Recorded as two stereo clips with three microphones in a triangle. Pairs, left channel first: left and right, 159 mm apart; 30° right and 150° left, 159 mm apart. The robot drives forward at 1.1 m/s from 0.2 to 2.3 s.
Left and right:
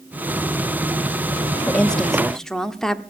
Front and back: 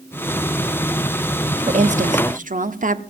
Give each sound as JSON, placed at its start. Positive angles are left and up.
{"t": 1.7, "sound": "a woman speaking", "azimuth_deg": 170, "distance_m": 0.6}